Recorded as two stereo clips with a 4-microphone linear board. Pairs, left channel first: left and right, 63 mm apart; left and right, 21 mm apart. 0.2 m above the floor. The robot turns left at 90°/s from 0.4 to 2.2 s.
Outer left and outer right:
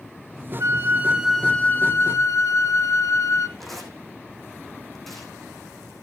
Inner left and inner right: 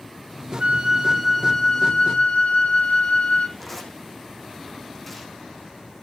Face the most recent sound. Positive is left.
turn(degrees=5)  # may be behind; listen again after turning